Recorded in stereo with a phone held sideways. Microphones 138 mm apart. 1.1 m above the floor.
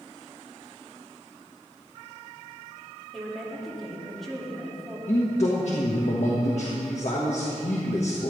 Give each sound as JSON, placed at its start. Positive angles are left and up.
{"t": 3.1, "sound": "a woman speaking", "side_deg": 0, "distance_m": 2.5}
{"t": 5.1, "sound": "a man speaking", "side_deg": 60, "distance_m": 1.5}